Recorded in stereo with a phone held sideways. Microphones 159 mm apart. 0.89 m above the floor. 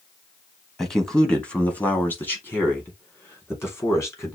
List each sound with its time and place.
0.8 s a man speaking: centre (ahead or behind), 1.3 m; by 4.4 s 20° left (ahead or behind), 3 m